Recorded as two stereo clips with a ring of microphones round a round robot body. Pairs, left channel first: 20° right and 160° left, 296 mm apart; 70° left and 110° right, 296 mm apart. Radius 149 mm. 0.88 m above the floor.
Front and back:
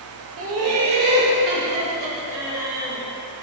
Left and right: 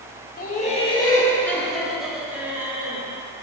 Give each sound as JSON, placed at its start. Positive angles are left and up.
{"t": 0.4, "sound": "laughter", "azimuth_deg": 125, "distance_m": 1.6}